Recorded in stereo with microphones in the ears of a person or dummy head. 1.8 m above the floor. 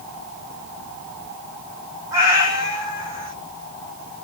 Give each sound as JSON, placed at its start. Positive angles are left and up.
{"t": 2.1, "sound": "a cat meowing", "side_deg": -20, "distance_m": 1.6}